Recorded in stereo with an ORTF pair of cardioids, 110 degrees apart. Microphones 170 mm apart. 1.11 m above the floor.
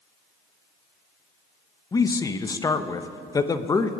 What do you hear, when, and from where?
1.9 s a man speaking: 20° left, 0.9 m